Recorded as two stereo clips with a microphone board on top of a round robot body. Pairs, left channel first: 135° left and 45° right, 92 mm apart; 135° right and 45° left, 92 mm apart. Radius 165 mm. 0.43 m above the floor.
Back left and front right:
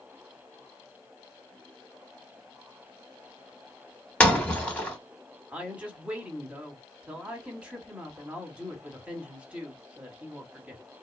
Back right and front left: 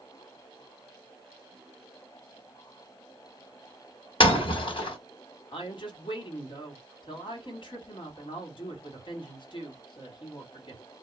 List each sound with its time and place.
4.2 s breaking glass: 150° right, 1.3 m
5.5 s a woman speaking: 120° right, 1.3 m